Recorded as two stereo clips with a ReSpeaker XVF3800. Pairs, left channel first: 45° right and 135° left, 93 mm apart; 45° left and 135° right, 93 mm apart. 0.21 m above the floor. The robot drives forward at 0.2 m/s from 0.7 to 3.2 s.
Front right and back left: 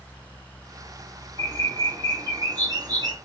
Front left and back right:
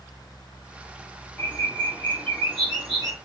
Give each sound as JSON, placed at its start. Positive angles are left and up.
{"t": 1.4, "sound": "a bird", "azimuth_deg": 105, "distance_m": 0.9}